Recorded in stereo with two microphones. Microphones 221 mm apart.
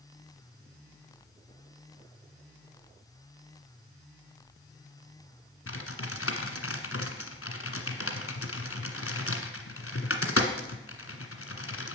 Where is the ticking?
I don't hear ticking.